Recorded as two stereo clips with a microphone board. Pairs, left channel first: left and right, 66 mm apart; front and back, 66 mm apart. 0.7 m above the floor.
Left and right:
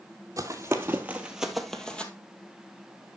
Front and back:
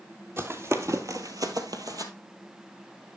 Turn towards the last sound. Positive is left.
turn(degrees=160)